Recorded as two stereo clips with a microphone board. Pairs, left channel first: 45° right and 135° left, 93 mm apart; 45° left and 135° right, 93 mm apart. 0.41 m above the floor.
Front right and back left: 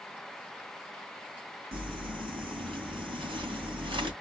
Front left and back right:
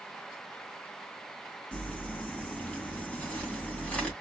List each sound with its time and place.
1.7 s crumpling: 120° left, 2.5 m